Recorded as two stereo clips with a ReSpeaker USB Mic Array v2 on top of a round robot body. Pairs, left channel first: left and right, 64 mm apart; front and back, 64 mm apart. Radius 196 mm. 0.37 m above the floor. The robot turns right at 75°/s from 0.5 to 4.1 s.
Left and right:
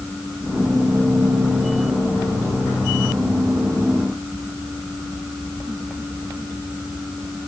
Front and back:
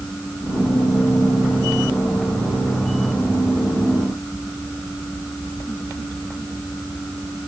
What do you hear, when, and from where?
Only background noise.